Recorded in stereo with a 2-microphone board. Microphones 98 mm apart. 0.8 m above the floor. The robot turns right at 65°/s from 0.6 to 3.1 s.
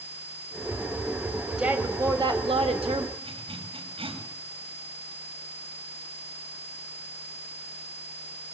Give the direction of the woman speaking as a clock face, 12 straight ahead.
6 o'clock.